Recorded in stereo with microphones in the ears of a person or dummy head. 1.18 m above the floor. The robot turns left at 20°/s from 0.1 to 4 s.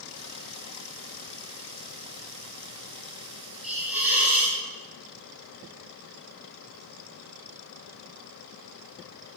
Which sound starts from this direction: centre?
A hiss, at 3.6 s.